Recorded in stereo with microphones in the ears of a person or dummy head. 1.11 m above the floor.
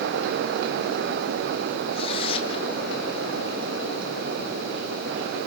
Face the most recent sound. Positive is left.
turn(degrees=35)  # may be behind; listen again after turning